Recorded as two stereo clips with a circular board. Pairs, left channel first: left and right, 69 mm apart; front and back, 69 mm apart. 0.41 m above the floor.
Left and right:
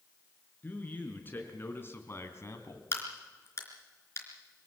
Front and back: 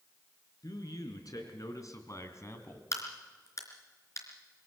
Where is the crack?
40° left, 3.5 m.